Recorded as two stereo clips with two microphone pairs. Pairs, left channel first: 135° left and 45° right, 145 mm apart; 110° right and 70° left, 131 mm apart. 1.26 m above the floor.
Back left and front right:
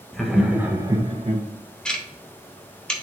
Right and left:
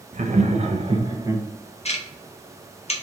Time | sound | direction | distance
0.1 | laughter | 50° left | 1.1 m
1.9 | ticking | 140° right | 0.9 m